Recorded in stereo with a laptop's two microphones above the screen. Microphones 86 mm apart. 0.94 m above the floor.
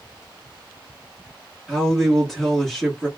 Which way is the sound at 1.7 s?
5° left (ahead or behind).